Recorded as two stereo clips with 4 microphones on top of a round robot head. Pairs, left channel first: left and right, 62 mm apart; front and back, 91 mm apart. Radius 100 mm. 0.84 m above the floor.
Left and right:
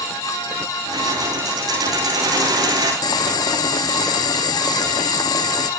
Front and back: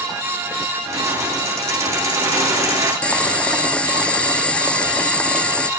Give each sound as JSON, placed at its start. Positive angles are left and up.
{"t": 0.9, "sound": "keys jangling", "azimuth_deg": -115, "distance_m": 9.5}
{"t": 3.0, "sound": "boiling", "azimuth_deg": 80, "distance_m": 0.7}